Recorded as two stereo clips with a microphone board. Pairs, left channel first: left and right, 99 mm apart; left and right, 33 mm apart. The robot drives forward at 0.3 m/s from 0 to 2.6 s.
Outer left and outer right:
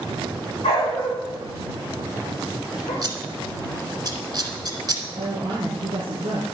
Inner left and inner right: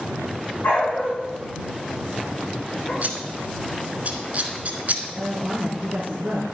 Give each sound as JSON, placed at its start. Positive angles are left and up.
{"t": 0.6, "sound": "a dog barking", "side_deg": 65, "distance_m": 6.0}
{"t": 3.0, "sound": "scissors", "side_deg": -45, "distance_m": 1.4}
{"t": 5.2, "sound": "a woman speaking", "side_deg": -65, "distance_m": 2.5}